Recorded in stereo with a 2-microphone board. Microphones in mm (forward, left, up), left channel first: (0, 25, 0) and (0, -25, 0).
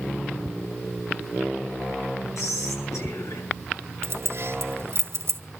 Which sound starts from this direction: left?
Whispering, at 2.4 s.